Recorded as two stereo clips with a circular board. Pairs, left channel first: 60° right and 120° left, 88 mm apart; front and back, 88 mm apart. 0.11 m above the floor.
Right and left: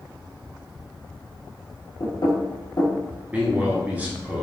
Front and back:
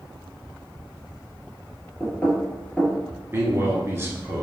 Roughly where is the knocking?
Right.